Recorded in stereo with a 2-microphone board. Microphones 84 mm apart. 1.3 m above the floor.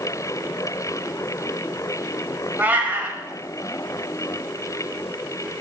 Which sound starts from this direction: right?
A cat meowing, at 2.6 s.